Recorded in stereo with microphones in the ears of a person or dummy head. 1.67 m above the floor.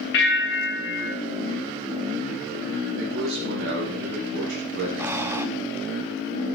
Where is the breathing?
10° right (ahead or behind), 0.7 m.